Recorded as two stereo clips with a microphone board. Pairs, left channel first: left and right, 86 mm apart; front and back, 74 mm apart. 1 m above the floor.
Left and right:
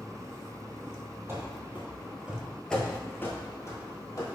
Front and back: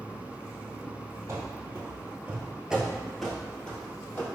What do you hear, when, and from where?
1.3 s running footsteps: 140° right, 1.4 m; by 4.3 s 60° left, 1.5 m